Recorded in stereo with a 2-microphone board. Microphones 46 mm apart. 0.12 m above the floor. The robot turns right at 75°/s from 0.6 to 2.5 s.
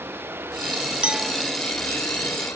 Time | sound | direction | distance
0.0 | running water | 55° right | ?
1.0 | a clink | 25° right (ahead or behind) | ?